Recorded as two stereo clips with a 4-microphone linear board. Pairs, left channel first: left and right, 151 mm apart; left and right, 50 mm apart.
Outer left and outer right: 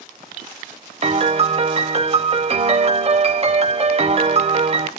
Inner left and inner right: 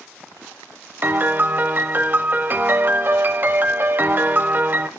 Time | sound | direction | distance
1.0 | a piano | 40° right (ahead or behind) | 0.6 m